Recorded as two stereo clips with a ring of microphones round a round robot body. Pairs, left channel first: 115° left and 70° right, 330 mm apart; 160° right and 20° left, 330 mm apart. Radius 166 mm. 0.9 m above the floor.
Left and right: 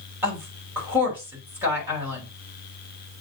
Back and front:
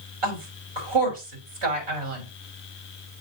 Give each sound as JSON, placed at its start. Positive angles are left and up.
{"t": 0.2, "sound": "a woman speaking", "azimuth_deg": 15, "distance_m": 4.0}